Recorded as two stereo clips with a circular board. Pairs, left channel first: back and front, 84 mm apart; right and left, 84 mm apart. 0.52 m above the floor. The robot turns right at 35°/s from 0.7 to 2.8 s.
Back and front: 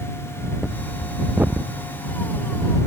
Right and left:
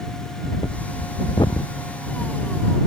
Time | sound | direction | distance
0.4 | breathing | 95° right | ?